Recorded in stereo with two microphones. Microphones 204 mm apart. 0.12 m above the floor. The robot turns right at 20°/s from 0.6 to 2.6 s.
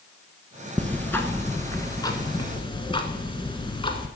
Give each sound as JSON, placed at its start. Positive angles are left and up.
{"t": 0.8, "sound": "ticking", "azimuth_deg": 15, "distance_m": 1.0}